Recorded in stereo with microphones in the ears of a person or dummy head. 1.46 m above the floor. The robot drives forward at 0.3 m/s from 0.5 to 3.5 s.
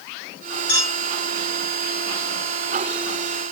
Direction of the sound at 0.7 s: 80° left.